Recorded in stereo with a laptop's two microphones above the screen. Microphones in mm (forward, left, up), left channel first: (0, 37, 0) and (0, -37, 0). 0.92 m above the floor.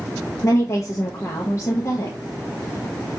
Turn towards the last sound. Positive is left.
turn(degrees=45)  # may be behind; listen again after turning